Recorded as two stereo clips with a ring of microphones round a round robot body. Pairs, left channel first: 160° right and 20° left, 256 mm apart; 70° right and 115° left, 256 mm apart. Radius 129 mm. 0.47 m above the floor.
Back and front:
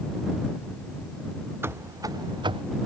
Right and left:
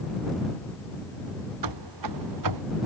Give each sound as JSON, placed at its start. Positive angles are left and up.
{"t": 1.6, "sound": "running footsteps", "azimuth_deg": 105}